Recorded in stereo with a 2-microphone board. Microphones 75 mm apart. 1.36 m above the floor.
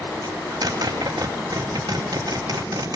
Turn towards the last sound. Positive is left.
turn(degrees=-60)  # may be behind; listen again after turning